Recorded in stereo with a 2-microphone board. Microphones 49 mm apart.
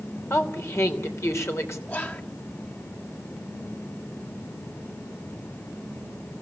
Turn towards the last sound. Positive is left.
turn(degrees=40)  # may be behind; listen again after turning